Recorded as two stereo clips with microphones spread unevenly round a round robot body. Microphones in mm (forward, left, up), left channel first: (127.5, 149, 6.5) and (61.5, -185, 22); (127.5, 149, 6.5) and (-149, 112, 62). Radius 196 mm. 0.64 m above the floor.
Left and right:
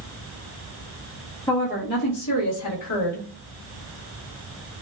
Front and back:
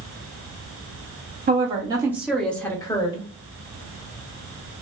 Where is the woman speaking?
135° left, 0.7 m; by 3.3 s 70° left, 1.2 m.